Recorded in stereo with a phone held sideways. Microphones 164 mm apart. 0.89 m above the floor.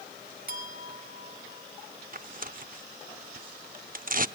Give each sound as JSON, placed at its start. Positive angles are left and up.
{"t": 0.5, "sound": "a clink", "side_deg": -60, "distance_m": 3.0}
{"t": 2.1, "sound": "tearing paper", "side_deg": -55, "distance_m": 0.7}